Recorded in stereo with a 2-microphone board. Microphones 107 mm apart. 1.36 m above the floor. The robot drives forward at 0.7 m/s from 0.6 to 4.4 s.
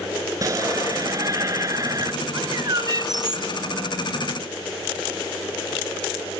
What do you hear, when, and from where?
0.4 s a shout: 35° right (ahead or behind)
2.3 s a bird: 40° right (ahead or behind); by 3.5 s 45° right (ahead or behind)